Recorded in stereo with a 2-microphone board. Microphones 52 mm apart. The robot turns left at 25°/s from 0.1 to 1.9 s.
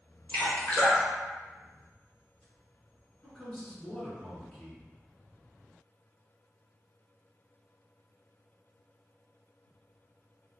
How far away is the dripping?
About 1.4 m.